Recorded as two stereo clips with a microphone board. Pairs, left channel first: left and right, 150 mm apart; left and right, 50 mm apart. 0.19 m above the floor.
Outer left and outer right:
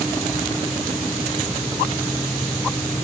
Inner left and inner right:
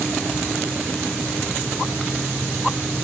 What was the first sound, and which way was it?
Only background noise.